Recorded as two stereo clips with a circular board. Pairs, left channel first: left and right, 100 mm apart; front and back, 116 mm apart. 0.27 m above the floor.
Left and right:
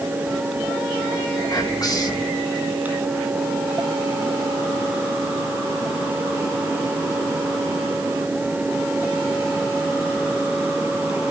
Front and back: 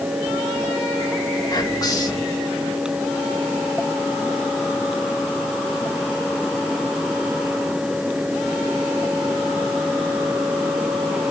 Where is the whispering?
50° left, 2 m.